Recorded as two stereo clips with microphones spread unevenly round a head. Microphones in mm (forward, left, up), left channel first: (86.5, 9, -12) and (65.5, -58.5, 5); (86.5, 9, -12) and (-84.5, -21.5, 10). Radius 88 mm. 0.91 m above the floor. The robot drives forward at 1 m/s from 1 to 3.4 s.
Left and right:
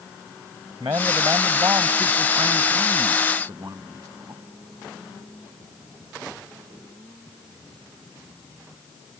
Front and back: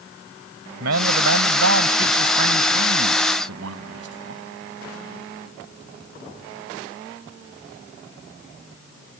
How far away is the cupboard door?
No cupboard door in this recording.